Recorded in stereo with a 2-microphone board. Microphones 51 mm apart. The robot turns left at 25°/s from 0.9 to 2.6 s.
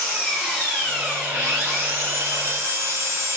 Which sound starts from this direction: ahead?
An engine running, at 0.0 s.